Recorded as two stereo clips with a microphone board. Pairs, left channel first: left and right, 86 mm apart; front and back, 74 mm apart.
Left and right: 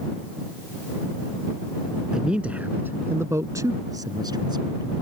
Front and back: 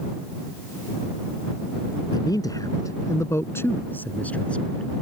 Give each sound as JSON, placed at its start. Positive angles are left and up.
{"t": 2.1, "sound": "a man speaking", "azimuth_deg": -10}